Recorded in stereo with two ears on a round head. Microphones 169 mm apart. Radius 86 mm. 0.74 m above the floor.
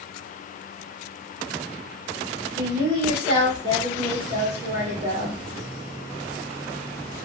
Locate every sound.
2.6 s a woman speaking: 60° right (ahead or behind), 3 m